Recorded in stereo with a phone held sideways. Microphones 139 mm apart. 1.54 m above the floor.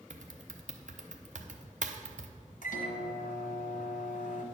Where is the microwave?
70° left (ahead or behind), 1.3 m.